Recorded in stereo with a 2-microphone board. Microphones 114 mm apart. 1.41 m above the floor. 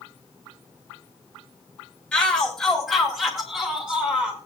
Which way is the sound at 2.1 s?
10° left (ahead or behind).